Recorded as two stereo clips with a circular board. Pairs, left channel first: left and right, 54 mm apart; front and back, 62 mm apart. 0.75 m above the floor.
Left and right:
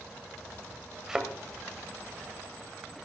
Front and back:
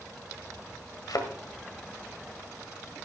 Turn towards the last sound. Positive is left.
turn(degrees=-10)